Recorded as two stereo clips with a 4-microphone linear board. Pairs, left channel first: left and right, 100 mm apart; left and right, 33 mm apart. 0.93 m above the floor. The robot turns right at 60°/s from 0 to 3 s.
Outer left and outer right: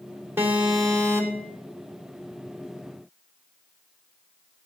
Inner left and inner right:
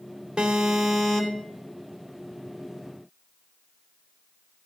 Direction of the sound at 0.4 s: 25° right.